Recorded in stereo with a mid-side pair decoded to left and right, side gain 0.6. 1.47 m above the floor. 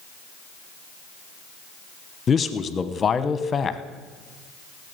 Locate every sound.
2.3 s a man speaking: 30° left, 1.0 m